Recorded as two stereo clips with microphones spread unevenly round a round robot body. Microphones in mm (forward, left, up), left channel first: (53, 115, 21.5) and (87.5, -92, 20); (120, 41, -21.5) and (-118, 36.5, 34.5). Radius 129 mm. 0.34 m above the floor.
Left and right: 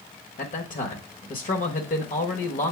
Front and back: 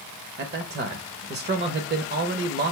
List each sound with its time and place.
0.4 s a man speaking: 135° left, 1.1 m